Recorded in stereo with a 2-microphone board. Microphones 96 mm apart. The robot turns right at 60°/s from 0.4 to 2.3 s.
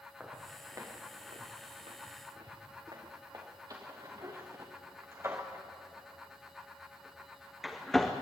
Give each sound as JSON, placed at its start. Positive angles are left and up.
{"t": 0.2, "sound": "footsteps", "side_deg": -10, "distance_m": 5.0}